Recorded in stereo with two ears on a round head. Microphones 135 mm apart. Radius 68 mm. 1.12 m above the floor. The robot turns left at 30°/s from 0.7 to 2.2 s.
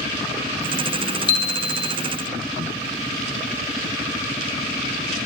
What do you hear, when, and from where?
1.3 s a chime: 40° left (ahead or behind), 1.1 m; by 1.9 s 45° left (ahead or behind), 1.1 m